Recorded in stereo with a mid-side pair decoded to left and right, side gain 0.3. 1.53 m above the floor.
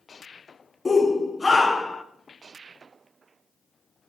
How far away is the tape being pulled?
No tape being pulled in this recording.